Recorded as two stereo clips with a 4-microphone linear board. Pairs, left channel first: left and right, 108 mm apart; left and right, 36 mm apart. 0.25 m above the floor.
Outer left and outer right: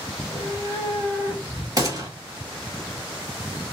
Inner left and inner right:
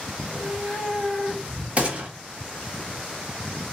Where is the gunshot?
35° right (ahead or behind), 1.2 m.